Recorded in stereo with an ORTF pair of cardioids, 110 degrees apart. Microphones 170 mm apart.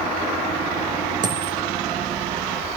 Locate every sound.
1.2 s a dropped coin: 50° right, 1.3 m